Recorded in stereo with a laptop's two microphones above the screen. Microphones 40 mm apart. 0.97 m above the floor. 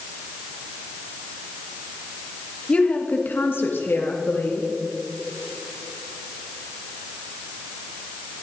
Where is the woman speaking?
30° left (ahead or behind), 1.1 m; by 4.7 s 65° left (ahead or behind), 2.0 m.